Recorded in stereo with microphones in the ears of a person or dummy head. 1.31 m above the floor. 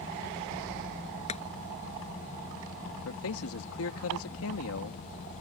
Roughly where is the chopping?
Left.